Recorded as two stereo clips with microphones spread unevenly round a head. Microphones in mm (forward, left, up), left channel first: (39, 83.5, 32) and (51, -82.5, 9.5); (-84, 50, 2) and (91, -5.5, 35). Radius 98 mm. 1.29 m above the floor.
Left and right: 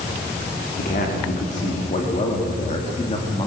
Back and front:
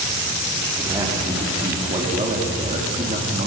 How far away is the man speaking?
About 3.5 m.